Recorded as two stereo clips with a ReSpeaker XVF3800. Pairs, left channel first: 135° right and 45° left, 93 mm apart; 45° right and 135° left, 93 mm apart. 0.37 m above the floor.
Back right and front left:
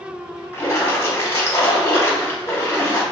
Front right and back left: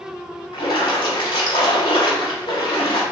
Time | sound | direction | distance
0.5 | a splash | 70° right | 0.9 m